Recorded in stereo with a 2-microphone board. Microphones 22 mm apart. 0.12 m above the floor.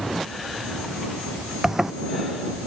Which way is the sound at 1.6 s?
20° right (ahead or behind).